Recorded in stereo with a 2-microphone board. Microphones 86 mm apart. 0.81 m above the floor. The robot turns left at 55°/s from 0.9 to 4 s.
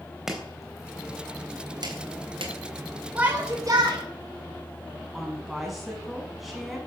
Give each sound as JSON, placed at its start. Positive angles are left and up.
{"t": 0.3, "sound": "chopping", "side_deg": -5, "distance_m": 3.5}
{"t": 3.1, "sound": "a shout", "azimuth_deg": -15, "distance_m": 4.0}
{"t": 5.1, "sound": "a woman speaking", "side_deg": -5, "distance_m": 6.5}